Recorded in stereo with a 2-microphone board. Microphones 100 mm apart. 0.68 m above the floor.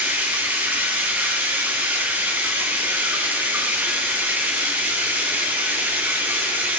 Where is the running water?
20° right (ahead or behind), 2.5 m.